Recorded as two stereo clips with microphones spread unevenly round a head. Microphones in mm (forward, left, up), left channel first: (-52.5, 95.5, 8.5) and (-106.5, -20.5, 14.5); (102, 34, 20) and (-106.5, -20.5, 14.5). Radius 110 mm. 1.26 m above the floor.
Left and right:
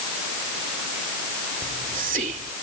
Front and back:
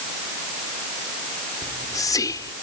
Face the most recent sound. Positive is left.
turn(degrees=-60)